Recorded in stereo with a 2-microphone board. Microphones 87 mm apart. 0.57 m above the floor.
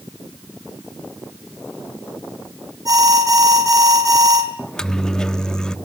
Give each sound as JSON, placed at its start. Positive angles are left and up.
{"t": 2.9, "sound": "an alarm", "side_deg": -45, "distance_m": 4.5}
{"t": 4.6, "sound": "a microwave", "side_deg": 10, "distance_m": 0.6}